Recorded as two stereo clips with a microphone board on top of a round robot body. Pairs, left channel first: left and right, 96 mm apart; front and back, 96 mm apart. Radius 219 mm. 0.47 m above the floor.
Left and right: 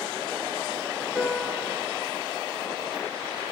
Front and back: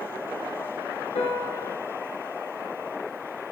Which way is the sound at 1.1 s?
5° right.